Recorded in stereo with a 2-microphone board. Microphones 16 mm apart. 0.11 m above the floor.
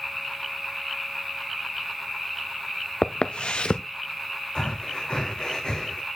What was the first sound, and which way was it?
Footsteps, 85° left.